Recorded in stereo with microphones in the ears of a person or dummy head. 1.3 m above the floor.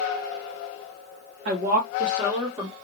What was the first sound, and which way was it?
A woman speaking, 55° right (ahead or behind).